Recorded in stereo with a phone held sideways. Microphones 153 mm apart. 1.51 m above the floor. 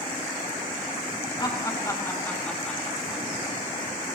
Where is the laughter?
30° left (ahead or behind), 3 m; by 3.2 s 5° right (ahead or behind), 4 m.